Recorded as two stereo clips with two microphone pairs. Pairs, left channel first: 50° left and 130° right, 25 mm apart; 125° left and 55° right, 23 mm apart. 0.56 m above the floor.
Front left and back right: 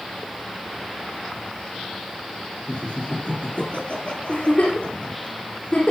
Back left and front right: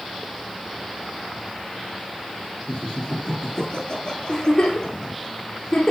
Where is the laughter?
80° left, 10 m.